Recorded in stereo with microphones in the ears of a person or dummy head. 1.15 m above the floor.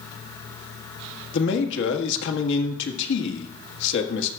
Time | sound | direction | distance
1.3 | a man speaking | 75° left (ahead or behind) | 1.6 m